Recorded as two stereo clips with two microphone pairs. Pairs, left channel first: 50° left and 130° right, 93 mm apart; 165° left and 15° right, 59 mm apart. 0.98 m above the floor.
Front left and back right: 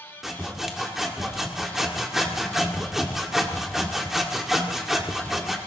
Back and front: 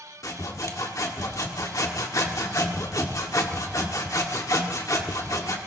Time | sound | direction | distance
0.2 | sawing | 145° left | 1.9 m